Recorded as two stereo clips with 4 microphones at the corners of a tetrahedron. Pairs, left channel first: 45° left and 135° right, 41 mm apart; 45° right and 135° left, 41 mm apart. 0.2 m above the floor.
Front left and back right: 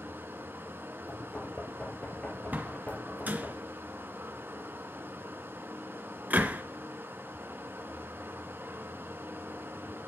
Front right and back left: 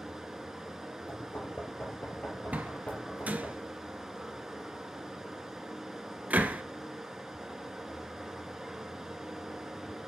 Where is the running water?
145° right, 1.7 m.